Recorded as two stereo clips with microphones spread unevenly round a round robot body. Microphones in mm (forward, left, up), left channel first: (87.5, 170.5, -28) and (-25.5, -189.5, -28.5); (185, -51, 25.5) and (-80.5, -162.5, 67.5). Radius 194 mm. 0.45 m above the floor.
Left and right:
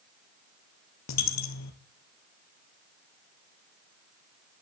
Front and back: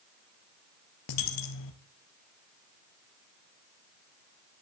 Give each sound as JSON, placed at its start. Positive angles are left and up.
{"t": 1.1, "sound": "a dropped coin", "azimuth_deg": 25, "distance_m": 2.0}